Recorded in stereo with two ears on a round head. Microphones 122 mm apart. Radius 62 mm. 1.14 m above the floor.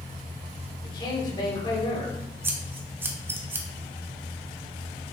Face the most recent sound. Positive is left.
turn(degrees=-15)  # may be behind; listen again after turning